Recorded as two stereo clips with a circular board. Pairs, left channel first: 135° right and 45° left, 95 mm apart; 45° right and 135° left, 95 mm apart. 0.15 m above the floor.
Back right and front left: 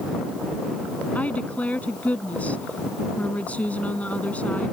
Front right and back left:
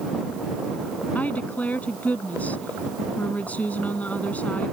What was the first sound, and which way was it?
A woman speaking, 90° right.